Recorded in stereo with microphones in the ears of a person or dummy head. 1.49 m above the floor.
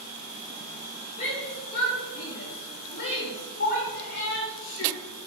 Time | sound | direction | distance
1.2 | a shout | 40° left (ahead or behind) | 3 m